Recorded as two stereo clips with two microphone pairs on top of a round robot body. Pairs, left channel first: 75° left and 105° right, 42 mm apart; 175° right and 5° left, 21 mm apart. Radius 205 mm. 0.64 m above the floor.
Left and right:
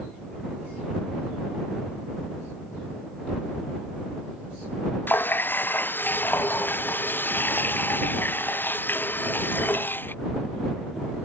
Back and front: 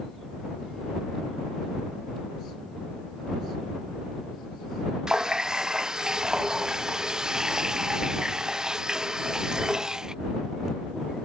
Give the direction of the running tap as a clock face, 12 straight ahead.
10 o'clock.